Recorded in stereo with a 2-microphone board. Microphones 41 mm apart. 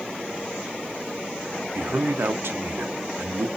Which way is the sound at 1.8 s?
65° right (ahead or behind).